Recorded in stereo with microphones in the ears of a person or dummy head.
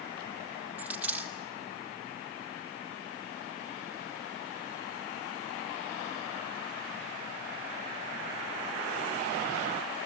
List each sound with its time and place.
0.8 s a dropped coin: 10° right (ahead or behind), 1.4 m